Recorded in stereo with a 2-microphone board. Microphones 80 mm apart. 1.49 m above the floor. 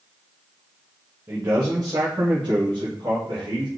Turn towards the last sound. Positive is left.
turn(degrees=-80)